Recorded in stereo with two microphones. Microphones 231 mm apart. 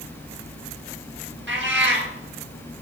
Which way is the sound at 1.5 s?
55° right (ahead or behind).